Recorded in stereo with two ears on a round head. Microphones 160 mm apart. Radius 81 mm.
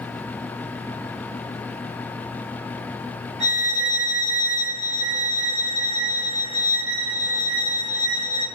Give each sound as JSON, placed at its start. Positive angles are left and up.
{"t": 3.4, "sound": "a violin", "side_deg": -40, "distance_m": 3.5}